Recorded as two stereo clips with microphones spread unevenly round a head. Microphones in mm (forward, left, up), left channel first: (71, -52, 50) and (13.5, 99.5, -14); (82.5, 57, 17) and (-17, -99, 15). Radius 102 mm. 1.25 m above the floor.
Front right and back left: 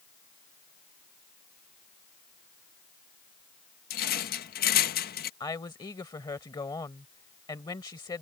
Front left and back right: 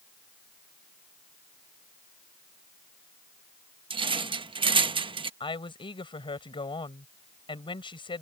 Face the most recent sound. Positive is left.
turn(degrees=-5)